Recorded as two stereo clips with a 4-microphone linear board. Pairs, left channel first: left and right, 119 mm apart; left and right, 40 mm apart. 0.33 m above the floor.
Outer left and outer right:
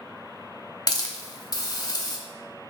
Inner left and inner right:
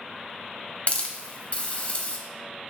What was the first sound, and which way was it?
A hiss, 35° left (ahead or behind).